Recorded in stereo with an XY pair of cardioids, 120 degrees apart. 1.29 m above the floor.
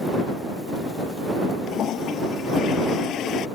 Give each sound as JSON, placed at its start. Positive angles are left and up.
{"t": 1.7, "sound": "a toilet flushing", "azimuth_deg": 60}